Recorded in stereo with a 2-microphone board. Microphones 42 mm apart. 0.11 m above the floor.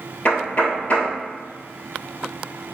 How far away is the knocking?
About 1.4 m.